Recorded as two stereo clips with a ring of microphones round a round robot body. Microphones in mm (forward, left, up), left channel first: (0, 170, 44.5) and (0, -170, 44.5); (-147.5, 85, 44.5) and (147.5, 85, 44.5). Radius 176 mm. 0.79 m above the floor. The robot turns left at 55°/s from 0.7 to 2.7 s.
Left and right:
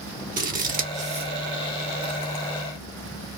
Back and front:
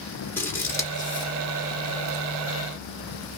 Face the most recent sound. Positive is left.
turn(degrees=140)